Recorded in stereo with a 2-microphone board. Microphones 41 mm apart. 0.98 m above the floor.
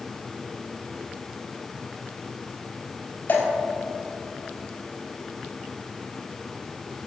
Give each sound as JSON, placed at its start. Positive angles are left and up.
{"t": 3.3, "sound": "dripping", "side_deg": 45, "distance_m": 5.0}